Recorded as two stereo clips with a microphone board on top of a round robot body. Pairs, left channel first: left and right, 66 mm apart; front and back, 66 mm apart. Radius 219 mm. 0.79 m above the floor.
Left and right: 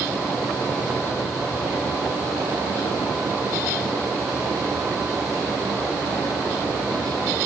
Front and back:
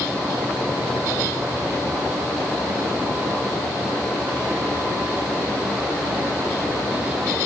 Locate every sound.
Only background noise.